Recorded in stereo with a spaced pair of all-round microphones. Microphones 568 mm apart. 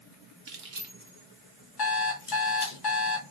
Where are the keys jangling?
45° right (ahead or behind), 0.7 m; by 2.8 s 55° left (ahead or behind), 1.1 m.